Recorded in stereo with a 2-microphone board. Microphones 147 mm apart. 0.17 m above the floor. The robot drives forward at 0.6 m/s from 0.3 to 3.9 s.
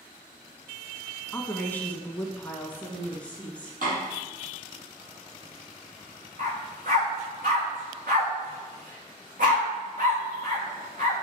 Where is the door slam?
65° right (ahead or behind), 4.5 m.